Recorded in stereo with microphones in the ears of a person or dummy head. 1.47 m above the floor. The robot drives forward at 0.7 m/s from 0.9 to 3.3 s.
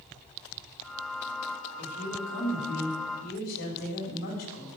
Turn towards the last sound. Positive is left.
turn(degrees=70)  # may be behind; listen again after turning